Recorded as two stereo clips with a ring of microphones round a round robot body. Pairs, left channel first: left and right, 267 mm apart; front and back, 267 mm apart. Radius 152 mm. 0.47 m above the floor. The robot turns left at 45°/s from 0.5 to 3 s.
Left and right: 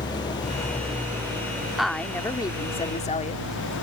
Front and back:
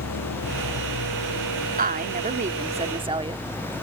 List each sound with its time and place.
0.0 s an engine running: 15° left; by 3.8 s 95° right
1.8 s a woman speaking: straight behind; by 3.4 s 130° left